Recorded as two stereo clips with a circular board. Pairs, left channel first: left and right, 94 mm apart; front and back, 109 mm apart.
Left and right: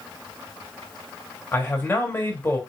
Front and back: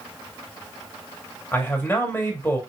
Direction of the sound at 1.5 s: 50° left.